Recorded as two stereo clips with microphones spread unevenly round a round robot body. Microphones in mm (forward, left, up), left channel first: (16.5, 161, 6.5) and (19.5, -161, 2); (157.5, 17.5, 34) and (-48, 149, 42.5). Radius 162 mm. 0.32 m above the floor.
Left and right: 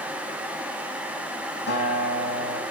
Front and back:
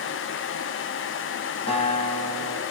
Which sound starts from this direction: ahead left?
A guitar, at 1.7 s.